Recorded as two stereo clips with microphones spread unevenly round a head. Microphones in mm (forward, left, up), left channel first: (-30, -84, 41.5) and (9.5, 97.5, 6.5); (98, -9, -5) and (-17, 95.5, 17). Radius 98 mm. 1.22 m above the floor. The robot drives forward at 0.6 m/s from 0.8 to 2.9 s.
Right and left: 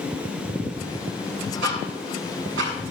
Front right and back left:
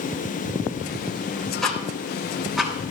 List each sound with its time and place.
1.6 s ticking: 45° left, 6.5 m; by 2.7 s 50° left, 6 m